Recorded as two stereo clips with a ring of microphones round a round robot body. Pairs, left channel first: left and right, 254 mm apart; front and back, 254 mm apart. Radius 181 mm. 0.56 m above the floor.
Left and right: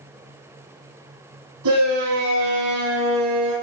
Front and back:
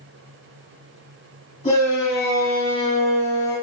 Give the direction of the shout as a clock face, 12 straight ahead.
2 o'clock.